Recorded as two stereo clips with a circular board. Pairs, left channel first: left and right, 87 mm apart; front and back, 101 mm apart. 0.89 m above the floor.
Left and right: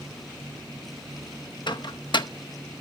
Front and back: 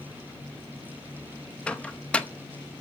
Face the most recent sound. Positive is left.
turn(degrees=80)